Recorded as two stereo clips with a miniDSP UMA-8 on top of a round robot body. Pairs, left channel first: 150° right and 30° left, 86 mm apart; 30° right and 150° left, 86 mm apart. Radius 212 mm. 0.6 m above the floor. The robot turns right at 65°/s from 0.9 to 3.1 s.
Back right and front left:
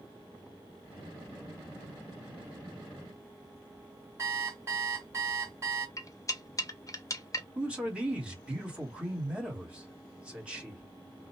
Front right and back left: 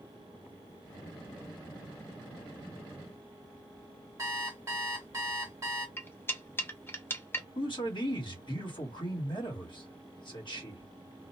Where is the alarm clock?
90° left, 0.6 m.